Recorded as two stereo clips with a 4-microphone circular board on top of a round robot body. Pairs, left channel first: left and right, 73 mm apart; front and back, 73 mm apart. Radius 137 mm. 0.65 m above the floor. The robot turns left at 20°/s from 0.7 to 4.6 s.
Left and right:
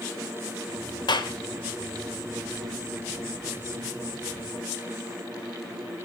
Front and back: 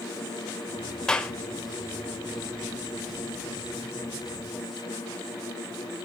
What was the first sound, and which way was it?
A clap, 80° left.